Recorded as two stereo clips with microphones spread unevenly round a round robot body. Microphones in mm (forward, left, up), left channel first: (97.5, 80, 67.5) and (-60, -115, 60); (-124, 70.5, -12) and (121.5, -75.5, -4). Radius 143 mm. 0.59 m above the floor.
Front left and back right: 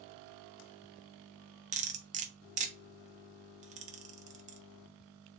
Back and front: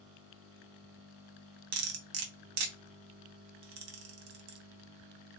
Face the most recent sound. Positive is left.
turn(degrees=-65)